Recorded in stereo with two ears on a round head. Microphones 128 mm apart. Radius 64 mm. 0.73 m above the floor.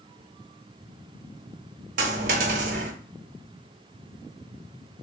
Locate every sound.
2.0 s a dropped coin: 55° right (ahead or behind), 0.8 m